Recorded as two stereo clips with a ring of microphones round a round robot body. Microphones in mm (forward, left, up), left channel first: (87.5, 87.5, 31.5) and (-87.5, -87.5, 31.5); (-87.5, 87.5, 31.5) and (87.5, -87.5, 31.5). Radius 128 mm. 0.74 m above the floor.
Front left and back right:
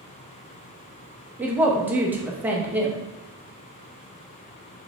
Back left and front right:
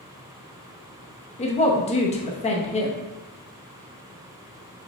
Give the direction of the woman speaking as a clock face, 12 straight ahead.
7 o'clock.